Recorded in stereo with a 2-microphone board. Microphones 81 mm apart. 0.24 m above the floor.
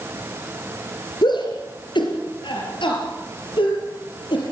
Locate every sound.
1.2 s a shout: 65° left (ahead or behind), 3.5 m; by 4.4 s 75° left (ahead or behind), 5.5 m